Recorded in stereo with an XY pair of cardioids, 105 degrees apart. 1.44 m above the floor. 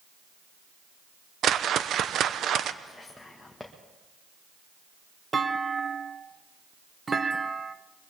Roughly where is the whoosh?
Ahead right.